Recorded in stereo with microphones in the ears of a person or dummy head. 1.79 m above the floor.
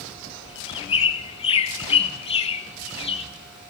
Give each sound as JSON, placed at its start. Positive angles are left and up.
{"t": 0.5, "sound": "a bird", "side_deg": 30, "distance_m": 1.4}